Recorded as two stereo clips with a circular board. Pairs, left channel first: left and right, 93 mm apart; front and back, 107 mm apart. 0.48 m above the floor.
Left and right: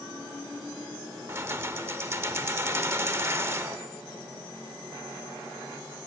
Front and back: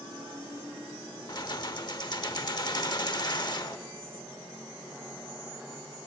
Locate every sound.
1.3 s keys jangling: 35° right, 0.8 m